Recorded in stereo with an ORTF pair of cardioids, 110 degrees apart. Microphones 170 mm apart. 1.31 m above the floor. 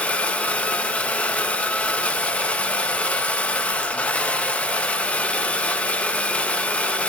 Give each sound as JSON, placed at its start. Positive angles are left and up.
{"t": 0.0, "sound": "a machine running", "azimuth_deg": 5, "distance_m": 1.3}